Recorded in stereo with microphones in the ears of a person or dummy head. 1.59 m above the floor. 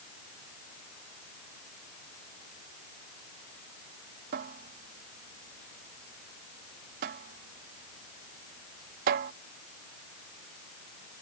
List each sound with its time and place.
4.3 s a cupboard door: 35° right (ahead or behind)